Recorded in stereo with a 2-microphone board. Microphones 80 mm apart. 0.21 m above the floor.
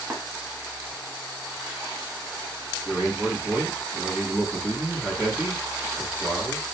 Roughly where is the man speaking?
Centre.